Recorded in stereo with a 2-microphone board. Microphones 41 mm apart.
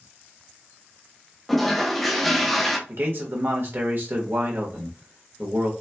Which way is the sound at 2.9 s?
55° right (ahead or behind).